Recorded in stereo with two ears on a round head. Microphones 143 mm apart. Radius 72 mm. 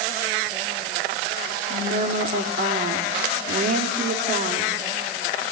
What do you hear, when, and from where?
1.7 s a woman speaking: 50° right (ahead or behind), 2.5 m